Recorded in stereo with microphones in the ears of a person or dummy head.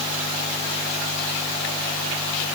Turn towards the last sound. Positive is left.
No sound to turn to.